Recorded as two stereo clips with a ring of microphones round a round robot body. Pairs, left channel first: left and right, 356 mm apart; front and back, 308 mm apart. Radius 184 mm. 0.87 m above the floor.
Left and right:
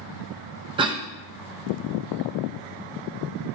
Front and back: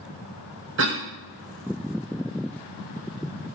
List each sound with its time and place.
0.8 s a cough: 160° right, 1.0 m